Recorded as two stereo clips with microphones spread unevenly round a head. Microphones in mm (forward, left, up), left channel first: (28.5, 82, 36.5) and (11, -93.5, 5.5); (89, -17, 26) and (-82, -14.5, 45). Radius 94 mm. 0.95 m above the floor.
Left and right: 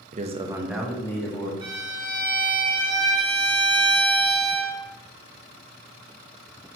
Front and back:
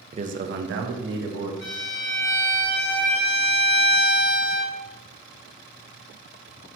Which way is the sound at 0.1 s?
125° right.